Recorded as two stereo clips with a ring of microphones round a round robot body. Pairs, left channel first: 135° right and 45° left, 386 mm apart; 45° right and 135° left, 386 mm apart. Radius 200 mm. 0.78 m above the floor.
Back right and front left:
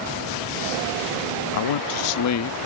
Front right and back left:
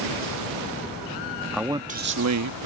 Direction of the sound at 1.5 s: 135° right.